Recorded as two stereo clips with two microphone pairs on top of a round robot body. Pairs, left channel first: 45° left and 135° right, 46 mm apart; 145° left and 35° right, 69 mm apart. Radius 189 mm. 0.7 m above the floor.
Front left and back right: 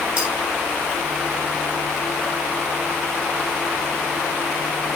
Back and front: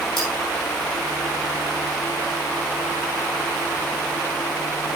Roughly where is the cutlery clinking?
Behind left.